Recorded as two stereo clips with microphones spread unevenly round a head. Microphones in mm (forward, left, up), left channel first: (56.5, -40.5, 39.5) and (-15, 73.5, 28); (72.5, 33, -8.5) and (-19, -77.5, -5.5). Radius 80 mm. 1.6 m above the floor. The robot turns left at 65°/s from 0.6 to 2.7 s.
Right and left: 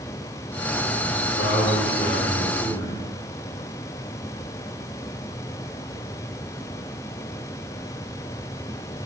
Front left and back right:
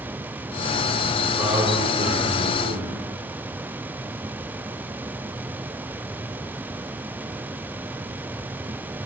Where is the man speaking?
50° right, 4 m; by 3.1 s 145° right, 4 m.